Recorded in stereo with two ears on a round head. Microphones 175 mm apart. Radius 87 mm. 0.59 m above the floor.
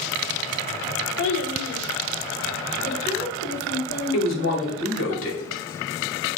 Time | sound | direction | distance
1.2 | a child speaking | 60° left (ahead or behind) | 1.0 m
4.1 | a woman speaking | 75° left (ahead or behind) | 2.5 m